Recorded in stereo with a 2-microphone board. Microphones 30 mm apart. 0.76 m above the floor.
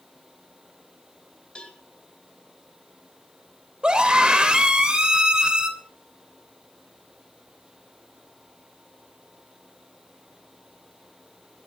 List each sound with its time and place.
1.6 s a cowbell: 35° left (ahead or behind), 2.5 m
3.8 s a scream: 30° right (ahead or behind), 3 m